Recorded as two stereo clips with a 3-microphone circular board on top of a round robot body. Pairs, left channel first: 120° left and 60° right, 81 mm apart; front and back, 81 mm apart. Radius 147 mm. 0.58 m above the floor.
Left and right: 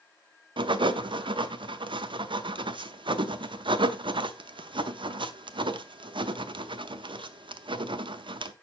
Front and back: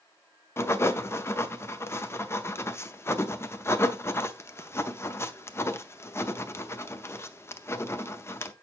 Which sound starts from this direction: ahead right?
Writing, at 0.6 s.